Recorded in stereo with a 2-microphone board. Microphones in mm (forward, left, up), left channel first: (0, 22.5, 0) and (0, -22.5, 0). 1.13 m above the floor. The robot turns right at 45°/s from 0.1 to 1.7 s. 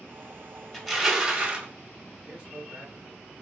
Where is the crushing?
165° left, 1.7 m; by 1.7 s 150° right, 1.7 m.